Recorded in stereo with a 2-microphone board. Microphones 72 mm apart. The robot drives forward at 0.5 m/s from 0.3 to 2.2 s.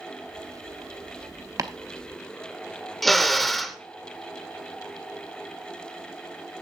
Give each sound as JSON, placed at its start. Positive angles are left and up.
{"t": 1.6, "sound": "chopping", "side_deg": -50, "distance_m": 0.8}
{"t": 3.0, "sound": "a drill", "side_deg": 5, "distance_m": 0.9}